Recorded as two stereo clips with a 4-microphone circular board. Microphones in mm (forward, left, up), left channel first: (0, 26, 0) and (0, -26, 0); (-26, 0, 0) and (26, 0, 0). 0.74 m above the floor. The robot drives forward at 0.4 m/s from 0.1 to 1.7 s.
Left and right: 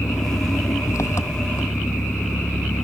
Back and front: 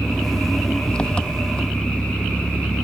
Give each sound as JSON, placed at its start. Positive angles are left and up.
{"t": 0.0, "sound": "an engine running", "azimuth_deg": 105}